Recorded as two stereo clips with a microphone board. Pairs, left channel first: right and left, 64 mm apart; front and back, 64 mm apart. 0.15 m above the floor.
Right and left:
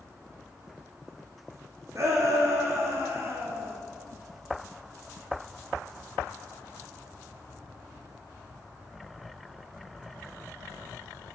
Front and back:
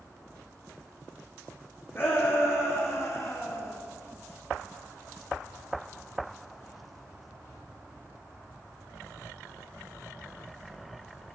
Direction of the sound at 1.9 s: 50° left.